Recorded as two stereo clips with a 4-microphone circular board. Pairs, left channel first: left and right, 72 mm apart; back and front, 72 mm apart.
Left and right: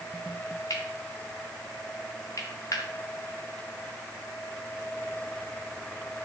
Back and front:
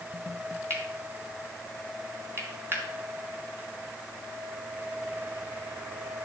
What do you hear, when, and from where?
0.7 s cutlery clinking: 55° left, 2 m